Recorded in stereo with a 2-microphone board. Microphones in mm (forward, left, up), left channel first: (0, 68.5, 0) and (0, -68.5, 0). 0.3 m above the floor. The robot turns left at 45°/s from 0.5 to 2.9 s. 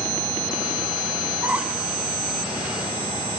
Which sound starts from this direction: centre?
A squeak, at 1.4 s.